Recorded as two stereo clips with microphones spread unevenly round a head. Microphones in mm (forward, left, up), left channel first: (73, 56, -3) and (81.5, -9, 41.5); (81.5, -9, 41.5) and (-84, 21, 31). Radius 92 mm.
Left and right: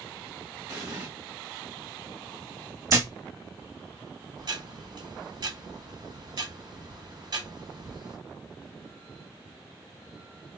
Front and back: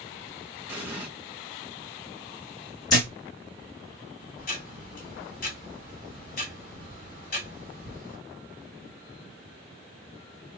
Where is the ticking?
50° right, 2.0 m.